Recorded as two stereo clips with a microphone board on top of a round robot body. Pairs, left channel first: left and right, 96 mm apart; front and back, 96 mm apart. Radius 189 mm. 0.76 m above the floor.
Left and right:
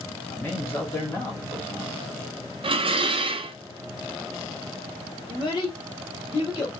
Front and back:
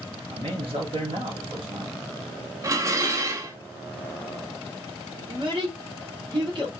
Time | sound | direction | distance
0.3 | a man speaking | 155° left | 1.8 m
2.6 | dishes clattering | 120° right | 0.5 m
5.3 | a child speaking | 140° left | 1.6 m